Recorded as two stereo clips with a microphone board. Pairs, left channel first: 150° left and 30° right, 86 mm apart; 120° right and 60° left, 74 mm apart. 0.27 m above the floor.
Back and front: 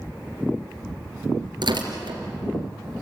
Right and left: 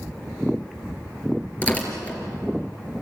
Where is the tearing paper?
50° right, 3.5 m.